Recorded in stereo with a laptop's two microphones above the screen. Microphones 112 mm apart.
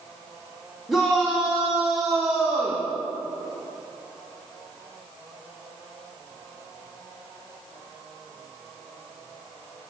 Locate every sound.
0.9 s a shout: centre (ahead or behind), 2.5 m; by 2.9 s 10° right (ahead or behind), 1.4 m